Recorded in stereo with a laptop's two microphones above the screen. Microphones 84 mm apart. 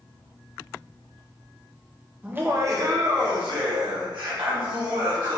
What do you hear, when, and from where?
2.2 s laughter: 15° right (ahead or behind), 0.7 m; by 5.4 s 75° right (ahead or behind), 2.5 m